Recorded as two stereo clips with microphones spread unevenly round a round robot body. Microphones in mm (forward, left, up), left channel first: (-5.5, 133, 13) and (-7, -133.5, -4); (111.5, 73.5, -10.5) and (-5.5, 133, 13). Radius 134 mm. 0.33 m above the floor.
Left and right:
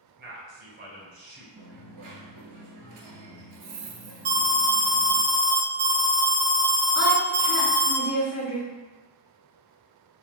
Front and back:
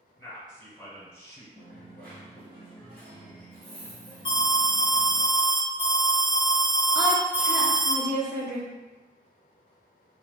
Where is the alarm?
50° right, 0.7 m.